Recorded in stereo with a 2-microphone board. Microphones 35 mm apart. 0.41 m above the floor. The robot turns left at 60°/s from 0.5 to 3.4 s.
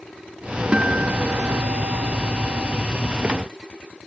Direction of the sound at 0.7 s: 30° right.